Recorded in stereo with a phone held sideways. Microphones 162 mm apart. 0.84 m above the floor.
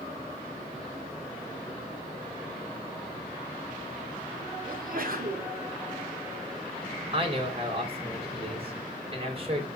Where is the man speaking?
35° right (ahead or behind), 3.5 m.